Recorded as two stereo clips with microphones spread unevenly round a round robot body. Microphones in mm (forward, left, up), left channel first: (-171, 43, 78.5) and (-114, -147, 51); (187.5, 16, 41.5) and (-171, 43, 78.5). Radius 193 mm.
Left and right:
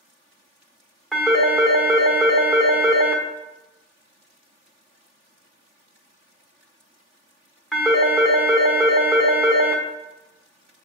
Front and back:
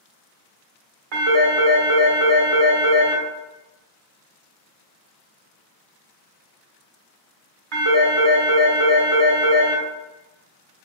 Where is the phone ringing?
160° right, 1.4 m.